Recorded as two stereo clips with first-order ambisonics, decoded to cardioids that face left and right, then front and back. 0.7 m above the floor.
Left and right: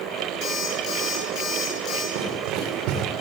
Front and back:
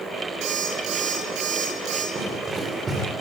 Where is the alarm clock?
140° left, 9 m.